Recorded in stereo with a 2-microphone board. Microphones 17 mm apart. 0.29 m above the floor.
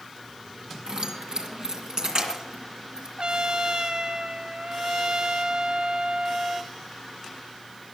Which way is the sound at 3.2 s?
65° right (ahead or behind).